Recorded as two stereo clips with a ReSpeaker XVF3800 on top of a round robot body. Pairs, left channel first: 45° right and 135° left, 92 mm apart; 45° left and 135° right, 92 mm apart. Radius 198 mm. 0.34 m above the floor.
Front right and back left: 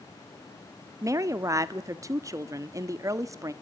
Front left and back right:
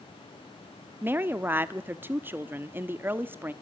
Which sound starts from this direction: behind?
A woman speaking, at 1.0 s.